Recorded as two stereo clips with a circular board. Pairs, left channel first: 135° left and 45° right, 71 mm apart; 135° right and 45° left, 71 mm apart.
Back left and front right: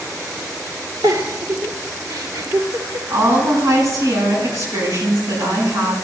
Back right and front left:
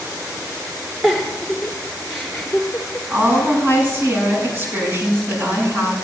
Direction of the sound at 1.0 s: 45° right.